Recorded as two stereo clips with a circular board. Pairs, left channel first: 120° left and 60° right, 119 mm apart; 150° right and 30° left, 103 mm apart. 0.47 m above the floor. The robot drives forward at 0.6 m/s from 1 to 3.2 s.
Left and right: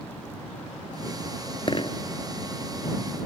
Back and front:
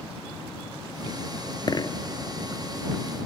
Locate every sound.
1.7 s a dropped coin: 165° left